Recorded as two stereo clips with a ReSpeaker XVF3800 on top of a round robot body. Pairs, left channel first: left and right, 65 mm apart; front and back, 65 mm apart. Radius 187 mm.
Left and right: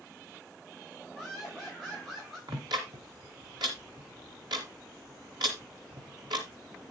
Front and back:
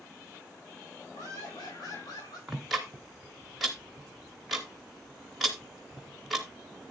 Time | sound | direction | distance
1.1 | laughter | straight ahead | 4.5 m
2.5 | ticking | 95° right | 0.5 m